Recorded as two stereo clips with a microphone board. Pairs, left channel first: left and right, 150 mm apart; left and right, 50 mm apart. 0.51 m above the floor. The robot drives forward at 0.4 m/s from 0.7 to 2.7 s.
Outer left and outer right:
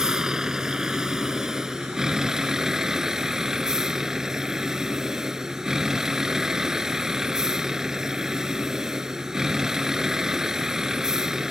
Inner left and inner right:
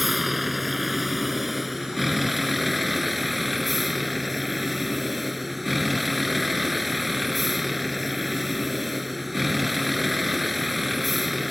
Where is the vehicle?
5° right (ahead or behind).